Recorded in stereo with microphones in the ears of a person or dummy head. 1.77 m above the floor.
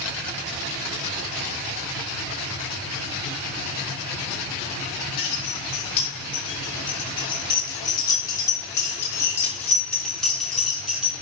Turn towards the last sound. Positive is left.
turn(degrees=-5)  # may be behind; listen again after turning